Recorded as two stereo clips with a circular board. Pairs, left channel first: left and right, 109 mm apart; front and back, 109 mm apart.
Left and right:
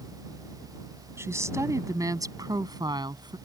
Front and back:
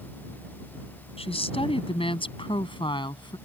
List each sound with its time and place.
1.2 s a woman speaking: 25° right; by 3.4 s 45° right